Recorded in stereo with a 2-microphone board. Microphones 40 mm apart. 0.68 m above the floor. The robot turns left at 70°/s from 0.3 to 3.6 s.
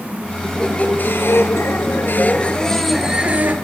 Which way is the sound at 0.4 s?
170° left.